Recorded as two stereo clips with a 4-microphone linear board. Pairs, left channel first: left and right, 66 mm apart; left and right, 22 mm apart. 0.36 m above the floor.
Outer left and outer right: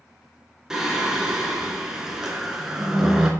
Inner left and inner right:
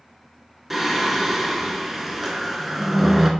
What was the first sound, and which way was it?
Singing, 10° right (ahead or behind).